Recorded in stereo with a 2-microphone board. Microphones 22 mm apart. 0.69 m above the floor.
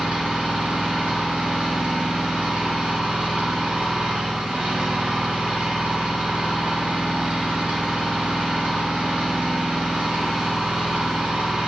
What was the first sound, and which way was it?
An engine running, 90° right.